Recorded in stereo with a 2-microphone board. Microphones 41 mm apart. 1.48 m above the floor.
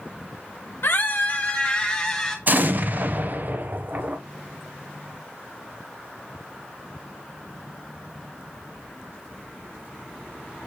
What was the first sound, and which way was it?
A scream, 60° left (ahead or behind).